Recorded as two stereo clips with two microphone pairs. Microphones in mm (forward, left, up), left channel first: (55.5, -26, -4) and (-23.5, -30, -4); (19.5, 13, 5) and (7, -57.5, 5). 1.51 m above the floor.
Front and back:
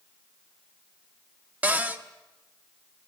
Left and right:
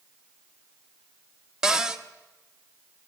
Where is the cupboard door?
160° right, 0.9 m.